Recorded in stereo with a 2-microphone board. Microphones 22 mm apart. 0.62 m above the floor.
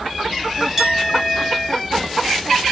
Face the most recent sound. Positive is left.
turn(degrees=-20)  # may be behind; listen again after turning